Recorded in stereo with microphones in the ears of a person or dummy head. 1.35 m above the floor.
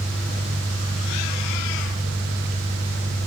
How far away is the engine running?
About 1.8 m.